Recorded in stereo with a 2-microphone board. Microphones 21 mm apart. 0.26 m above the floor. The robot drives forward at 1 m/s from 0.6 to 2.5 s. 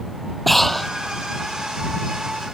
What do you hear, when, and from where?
0.5 s breathing: 10° left (ahead or behind)